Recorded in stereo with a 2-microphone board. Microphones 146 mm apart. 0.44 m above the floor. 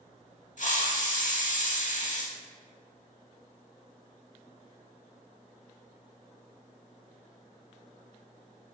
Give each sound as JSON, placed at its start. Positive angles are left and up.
{"t": 0.6, "sound": "a hiss", "side_deg": 60, "distance_m": 0.6}